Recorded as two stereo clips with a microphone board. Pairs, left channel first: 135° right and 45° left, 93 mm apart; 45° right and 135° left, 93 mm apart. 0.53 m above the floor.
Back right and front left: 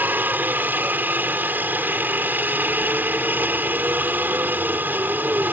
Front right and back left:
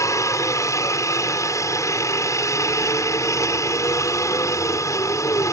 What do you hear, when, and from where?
0.0 s a helicopter: 15° right